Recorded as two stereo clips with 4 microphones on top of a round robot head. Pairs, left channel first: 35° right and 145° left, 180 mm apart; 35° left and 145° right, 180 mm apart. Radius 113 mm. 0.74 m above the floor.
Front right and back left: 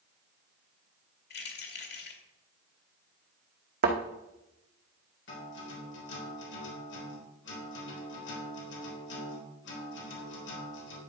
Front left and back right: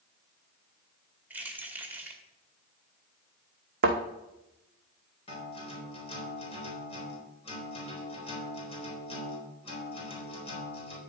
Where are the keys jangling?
65° right, 2 m.